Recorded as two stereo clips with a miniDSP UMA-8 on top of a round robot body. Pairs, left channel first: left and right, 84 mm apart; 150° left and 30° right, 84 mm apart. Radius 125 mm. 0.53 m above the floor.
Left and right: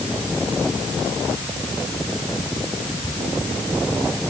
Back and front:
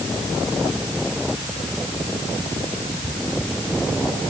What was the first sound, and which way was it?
Only background noise.